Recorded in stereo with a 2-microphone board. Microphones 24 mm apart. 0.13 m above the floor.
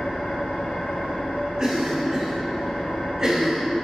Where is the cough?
25° right (ahead or behind), 1.4 m.